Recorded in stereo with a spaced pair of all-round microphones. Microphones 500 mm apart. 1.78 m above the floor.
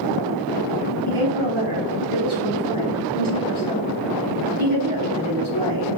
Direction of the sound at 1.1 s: 70° right (ahead or behind).